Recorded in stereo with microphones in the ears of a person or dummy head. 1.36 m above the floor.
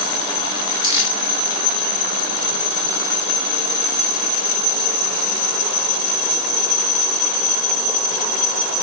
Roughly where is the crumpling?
Right.